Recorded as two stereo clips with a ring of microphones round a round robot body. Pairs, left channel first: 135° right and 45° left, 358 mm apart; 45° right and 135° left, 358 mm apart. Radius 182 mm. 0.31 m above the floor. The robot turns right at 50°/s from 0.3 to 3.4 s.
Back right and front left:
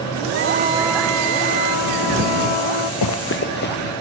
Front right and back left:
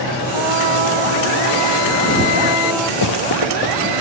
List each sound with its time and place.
0.3 s a trumpet: 100° left; by 2.9 s 130° right
3.0 s running footsteps: 90° right; by 3.9 s 70° right